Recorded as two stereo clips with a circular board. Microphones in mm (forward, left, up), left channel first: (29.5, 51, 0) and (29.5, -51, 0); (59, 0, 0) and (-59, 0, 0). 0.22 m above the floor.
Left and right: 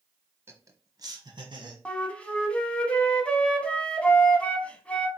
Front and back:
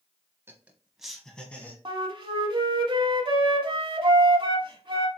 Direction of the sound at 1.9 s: 165° left.